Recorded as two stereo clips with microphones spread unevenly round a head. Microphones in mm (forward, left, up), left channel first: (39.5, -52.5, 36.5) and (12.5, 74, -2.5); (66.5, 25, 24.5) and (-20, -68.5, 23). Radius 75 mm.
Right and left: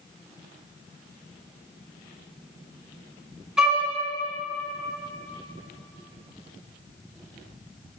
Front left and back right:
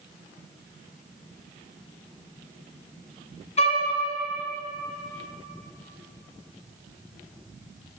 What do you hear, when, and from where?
3.6 s a violin: 10° left, 4 m